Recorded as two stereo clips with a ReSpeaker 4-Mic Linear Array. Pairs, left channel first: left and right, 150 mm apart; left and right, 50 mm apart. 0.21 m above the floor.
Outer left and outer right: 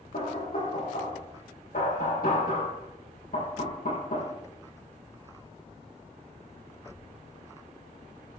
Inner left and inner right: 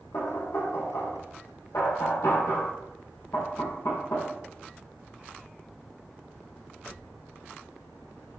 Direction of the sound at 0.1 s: 80° left.